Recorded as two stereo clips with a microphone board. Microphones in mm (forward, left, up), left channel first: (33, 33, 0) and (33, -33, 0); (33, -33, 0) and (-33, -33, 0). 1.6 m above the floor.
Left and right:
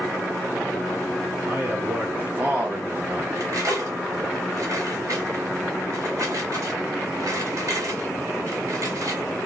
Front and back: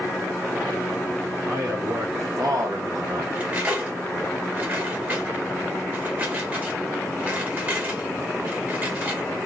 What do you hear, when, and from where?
1.4 s a man speaking: 150° right, 3 m; by 3.2 s 165° right, 1.0 m
3.4 s cutlery clinking: 120° right, 2 m